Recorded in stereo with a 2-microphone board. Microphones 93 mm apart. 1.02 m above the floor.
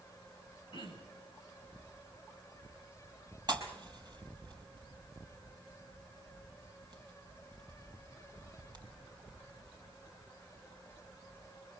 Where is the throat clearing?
55° left (ahead or behind), 9.5 m.